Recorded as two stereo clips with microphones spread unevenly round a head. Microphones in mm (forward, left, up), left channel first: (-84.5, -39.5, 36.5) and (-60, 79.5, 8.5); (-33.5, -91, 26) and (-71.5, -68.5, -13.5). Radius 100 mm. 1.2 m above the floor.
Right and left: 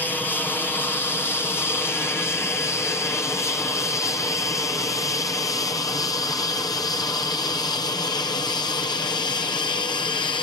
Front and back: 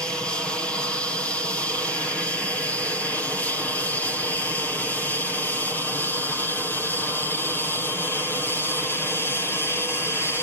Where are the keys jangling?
I don't hear keys jangling.